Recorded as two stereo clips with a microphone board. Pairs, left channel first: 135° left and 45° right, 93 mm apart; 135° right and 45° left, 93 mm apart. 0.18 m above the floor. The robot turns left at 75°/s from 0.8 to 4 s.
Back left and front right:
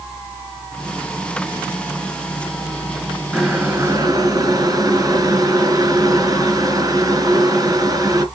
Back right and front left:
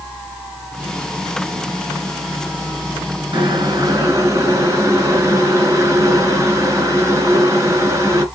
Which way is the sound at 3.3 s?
40° left.